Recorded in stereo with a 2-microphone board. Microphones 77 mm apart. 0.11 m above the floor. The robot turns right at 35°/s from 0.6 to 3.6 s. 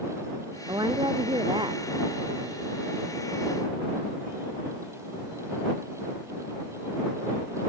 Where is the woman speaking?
115° right; by 2.6 s 45° right.